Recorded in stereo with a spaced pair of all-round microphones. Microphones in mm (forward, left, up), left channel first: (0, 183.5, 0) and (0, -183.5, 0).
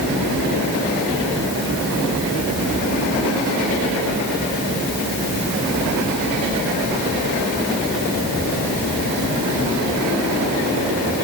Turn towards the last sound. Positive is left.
No sound to turn to.